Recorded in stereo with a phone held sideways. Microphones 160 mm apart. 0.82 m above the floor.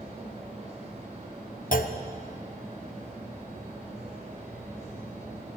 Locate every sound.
0.0 s a fan: 50° right (ahead or behind), 3.5 m
1.7 s a clunk: 60° left (ahead or behind), 0.7 m